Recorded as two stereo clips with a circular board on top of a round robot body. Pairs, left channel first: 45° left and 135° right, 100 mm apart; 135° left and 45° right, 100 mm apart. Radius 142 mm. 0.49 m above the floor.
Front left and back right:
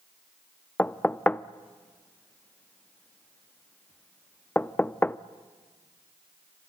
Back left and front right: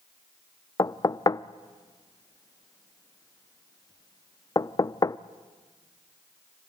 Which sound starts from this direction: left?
Knocking, at 0.8 s.